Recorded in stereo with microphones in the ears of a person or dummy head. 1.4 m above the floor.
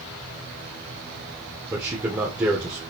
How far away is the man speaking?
About 0.8 m.